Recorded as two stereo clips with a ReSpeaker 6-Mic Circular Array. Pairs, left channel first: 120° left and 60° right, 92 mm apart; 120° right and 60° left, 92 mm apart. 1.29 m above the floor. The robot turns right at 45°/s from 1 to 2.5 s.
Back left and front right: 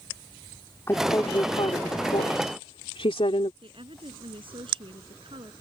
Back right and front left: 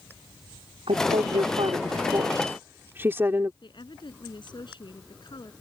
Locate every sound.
0.9 s a woman speaking: 60° left; by 3.5 s 125° left
3.6 s a woman speaking: 85° right